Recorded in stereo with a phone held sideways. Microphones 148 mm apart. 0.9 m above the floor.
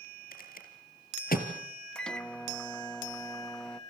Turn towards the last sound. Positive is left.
turn(degrees=5)  # may be behind; listen again after turning